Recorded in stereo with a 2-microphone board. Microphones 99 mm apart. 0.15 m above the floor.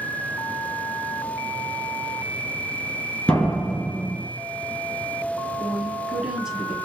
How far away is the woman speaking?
About 1.5 m.